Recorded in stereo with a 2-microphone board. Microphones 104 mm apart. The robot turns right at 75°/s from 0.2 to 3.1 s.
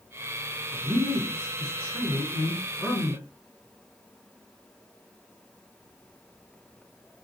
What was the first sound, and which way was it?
A man speaking, 10° right (ahead or behind).